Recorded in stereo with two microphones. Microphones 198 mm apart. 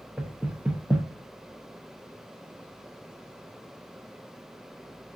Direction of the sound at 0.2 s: 5° right (ahead or behind).